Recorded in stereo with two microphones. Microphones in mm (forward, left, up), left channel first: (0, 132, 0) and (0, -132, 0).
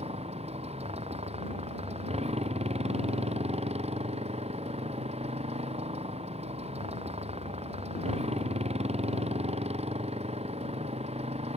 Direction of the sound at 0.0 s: 25° right (ahead or behind).